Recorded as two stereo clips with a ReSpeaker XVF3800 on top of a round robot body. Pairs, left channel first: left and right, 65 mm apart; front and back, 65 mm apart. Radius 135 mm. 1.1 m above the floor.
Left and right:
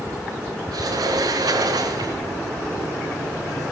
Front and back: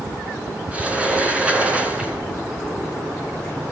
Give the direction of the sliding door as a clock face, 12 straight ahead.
4 o'clock.